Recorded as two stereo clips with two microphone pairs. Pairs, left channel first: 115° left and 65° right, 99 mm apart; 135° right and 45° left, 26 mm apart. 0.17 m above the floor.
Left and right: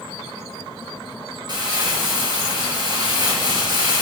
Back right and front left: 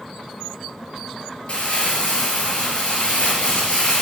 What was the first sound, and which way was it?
Crumpling, 105° right.